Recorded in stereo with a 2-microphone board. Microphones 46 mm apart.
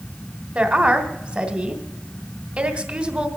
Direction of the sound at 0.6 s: 25° right (ahead or behind).